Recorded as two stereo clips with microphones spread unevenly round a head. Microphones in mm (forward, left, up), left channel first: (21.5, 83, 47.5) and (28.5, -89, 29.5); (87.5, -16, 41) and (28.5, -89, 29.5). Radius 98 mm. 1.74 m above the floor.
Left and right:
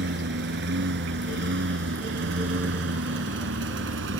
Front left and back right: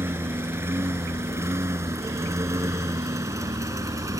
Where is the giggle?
I don't hear a giggle.